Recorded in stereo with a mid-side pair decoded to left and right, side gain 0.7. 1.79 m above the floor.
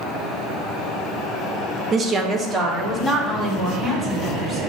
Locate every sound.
1.9 s a woman speaking: 35° right, 0.7 m; by 4.6 s 20° right, 3.5 m